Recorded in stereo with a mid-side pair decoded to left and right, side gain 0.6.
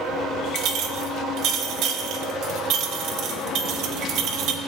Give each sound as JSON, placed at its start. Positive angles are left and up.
{"t": 0.6, "sound": "a clink", "azimuth_deg": -65, "distance_m": 1.2}